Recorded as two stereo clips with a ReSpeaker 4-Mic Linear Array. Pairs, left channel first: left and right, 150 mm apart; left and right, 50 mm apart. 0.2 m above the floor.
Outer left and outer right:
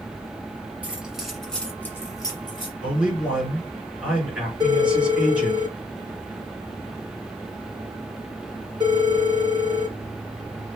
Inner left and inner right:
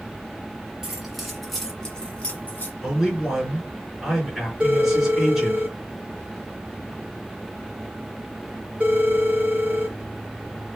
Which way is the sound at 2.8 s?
5° right (ahead or behind).